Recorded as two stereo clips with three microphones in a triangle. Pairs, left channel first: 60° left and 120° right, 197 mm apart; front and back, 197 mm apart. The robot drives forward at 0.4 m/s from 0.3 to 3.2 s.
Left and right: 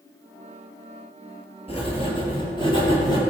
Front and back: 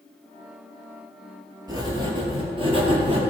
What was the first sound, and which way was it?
Writing, 115° left.